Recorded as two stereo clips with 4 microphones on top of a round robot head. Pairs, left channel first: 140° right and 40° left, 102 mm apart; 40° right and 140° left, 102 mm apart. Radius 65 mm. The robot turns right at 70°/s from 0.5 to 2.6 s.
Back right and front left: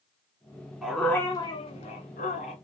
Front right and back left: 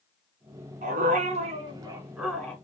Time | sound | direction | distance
0.8 | a dog barking | 125° left | 1.5 m